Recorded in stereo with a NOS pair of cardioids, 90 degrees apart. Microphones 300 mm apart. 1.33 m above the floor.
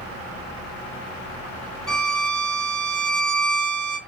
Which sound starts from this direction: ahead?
A violin, at 1.9 s.